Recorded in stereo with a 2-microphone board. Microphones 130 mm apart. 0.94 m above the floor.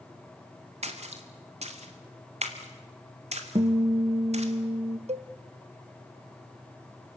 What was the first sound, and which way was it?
A splash, 55° right (ahead or behind).